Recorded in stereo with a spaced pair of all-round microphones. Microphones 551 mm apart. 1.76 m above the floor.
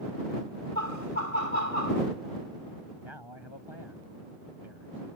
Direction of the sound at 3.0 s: 50° left (ahead or behind).